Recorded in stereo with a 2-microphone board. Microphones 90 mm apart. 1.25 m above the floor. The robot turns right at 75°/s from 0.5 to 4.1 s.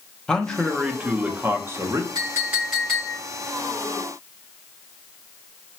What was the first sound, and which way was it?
A man speaking, 165° left.